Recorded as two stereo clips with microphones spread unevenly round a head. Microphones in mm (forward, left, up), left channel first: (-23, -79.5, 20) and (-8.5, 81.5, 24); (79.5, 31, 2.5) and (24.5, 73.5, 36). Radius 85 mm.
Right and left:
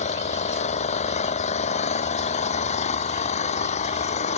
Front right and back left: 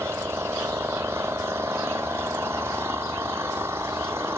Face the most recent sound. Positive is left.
turn(degrees=-145)